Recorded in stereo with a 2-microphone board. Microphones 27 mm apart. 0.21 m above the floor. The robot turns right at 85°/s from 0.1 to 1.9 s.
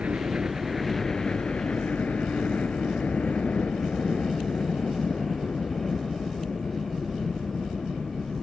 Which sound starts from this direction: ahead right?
A helicopter, at 0.0 s.